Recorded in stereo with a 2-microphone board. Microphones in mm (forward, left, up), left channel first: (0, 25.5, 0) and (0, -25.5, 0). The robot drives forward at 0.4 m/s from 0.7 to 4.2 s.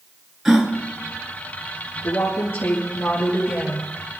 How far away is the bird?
I don't hear a bird.